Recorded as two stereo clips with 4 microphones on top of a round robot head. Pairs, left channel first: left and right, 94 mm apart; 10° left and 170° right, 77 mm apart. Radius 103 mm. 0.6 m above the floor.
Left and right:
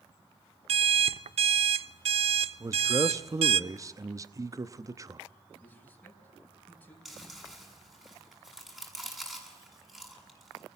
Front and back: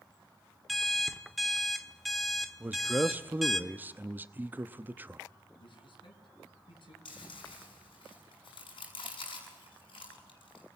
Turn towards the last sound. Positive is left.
turn(degrees=-5)